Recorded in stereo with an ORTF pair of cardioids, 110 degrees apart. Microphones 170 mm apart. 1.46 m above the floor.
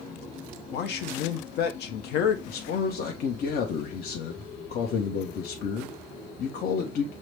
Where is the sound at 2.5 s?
55° left, 0.9 m.